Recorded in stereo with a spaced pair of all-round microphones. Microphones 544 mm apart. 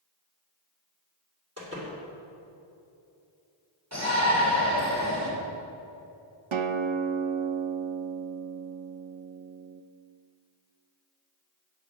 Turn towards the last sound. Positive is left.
turn(degrees=-60)  # may be behind; listen again after turning